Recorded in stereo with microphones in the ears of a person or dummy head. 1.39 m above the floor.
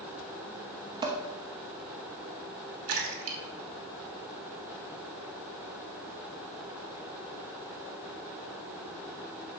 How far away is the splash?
About 2 m.